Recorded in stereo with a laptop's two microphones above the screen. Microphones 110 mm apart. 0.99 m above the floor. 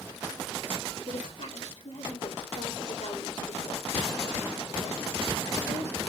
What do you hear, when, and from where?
1.1 s a woman speaking: 80° left, 2.5 m